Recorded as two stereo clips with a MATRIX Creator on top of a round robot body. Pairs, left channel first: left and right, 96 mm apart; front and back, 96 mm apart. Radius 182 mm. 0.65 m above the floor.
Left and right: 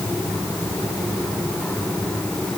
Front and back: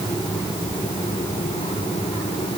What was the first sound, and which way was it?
Only background noise.